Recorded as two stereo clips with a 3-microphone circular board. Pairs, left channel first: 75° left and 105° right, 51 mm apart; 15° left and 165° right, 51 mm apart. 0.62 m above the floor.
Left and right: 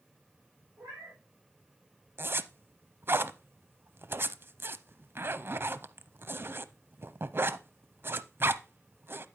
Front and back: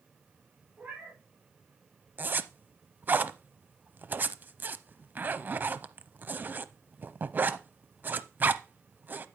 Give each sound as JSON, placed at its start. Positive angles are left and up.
{"t": 0.8, "sound": "a cat meowing", "azimuth_deg": -115, "distance_m": 5.5}
{"t": 2.2, "sound": "a zipper", "azimuth_deg": -125, "distance_m": 0.6}